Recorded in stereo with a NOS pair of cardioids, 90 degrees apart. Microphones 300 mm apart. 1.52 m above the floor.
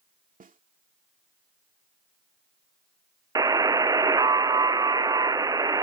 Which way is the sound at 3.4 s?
10° right.